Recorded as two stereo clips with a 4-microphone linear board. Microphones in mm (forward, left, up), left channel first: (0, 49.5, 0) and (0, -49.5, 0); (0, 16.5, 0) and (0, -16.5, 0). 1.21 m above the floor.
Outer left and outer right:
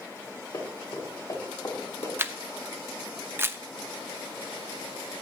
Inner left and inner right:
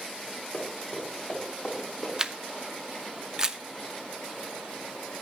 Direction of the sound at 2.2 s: 25° right (ahead or behind).